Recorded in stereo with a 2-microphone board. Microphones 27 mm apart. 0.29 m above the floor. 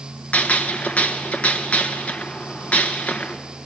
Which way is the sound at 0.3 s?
70° left (ahead or behind).